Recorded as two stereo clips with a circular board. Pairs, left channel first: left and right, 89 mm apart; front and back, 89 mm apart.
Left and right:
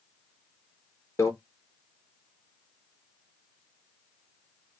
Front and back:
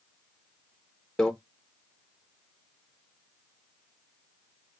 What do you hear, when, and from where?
1.2 s a microwave: 75° left, 0.6 m